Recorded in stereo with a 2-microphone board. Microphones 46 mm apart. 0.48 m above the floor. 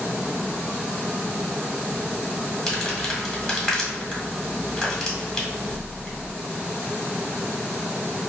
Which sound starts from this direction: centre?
Crumpling, at 2.7 s.